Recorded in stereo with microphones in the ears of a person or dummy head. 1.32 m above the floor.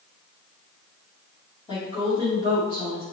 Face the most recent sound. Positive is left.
turn(degrees=30)  # may be behind; listen again after turning